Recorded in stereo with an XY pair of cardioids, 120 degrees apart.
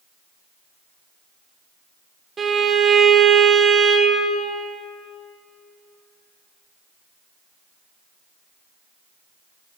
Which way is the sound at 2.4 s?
35° right.